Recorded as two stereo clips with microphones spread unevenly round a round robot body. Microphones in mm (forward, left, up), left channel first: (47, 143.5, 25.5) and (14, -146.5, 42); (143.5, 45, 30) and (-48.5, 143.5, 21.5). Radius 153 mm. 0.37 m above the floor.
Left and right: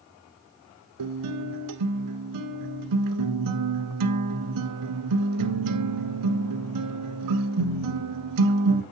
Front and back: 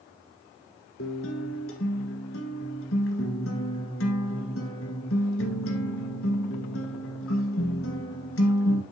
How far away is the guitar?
About 1.3 m.